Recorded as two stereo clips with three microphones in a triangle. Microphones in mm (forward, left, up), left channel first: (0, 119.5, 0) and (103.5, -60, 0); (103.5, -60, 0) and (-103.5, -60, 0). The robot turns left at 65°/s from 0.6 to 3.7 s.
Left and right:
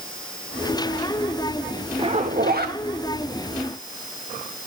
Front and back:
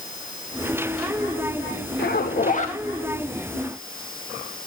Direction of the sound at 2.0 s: Straight ahead.